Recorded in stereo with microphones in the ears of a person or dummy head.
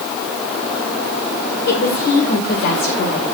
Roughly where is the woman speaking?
Left.